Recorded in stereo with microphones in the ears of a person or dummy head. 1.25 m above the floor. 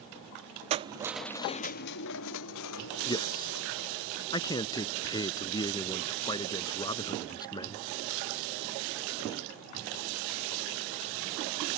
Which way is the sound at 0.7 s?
35° right (ahead or behind).